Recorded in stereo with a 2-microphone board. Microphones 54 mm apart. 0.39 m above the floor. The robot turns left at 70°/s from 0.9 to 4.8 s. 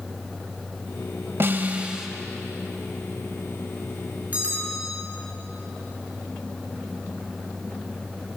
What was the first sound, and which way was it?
A snare drum, 125° right.